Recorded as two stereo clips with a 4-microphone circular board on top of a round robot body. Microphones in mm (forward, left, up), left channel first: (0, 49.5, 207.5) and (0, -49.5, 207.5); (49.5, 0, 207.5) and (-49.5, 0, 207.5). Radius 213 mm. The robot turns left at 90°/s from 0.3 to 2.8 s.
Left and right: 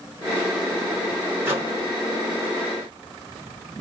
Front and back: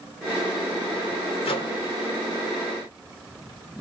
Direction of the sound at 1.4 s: 20° right.